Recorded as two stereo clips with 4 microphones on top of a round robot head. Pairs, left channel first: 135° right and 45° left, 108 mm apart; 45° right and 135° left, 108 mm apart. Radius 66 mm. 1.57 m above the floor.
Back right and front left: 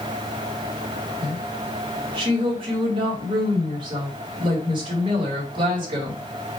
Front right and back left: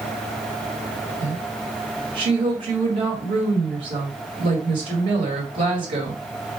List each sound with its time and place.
1.2 s a woman speaking: 90° left, 1.8 m